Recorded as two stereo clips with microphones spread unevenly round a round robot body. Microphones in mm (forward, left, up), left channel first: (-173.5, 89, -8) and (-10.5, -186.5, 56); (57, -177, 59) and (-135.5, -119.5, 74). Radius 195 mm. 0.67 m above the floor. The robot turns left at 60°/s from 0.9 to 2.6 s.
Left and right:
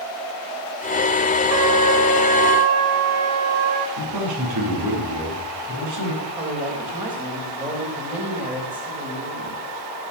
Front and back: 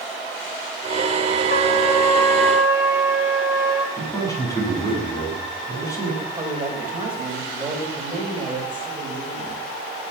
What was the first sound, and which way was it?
A trumpet, 55° right.